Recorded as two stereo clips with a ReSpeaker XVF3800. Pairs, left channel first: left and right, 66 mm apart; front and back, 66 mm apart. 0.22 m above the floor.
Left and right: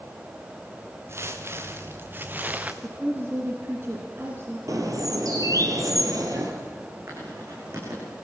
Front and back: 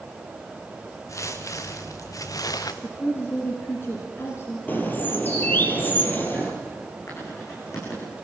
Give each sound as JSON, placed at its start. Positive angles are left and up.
{"t": 1.1, "sound": "footsteps", "azimuth_deg": -40, "distance_m": 2.5}
{"t": 2.8, "sound": "a woman speaking", "azimuth_deg": -45, "distance_m": 2.5}
{"t": 4.7, "sound": "a bird", "azimuth_deg": -60, "distance_m": 3.0}
{"t": 7.1, "sound": "writing", "azimuth_deg": -40, "distance_m": 10.0}